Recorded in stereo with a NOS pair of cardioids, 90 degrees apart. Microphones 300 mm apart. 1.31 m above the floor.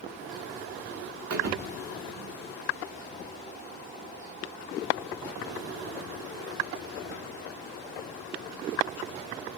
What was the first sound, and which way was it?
A thud, 60° right.